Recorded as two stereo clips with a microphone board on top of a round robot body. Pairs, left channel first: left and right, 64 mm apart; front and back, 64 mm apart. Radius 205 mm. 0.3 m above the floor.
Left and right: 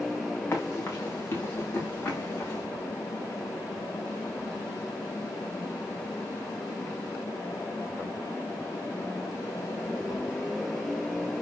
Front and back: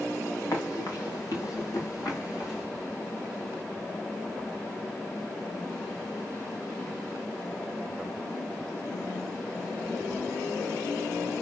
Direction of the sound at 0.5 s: 35° left.